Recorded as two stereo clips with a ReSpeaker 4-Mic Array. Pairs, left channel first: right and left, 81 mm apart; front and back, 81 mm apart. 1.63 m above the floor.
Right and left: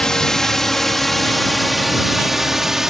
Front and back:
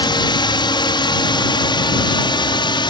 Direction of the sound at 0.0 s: 10° right.